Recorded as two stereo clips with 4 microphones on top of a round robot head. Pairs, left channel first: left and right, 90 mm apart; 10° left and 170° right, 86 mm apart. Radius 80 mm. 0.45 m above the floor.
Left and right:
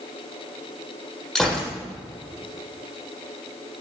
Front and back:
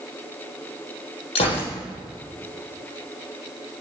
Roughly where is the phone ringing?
I don't hear a phone ringing.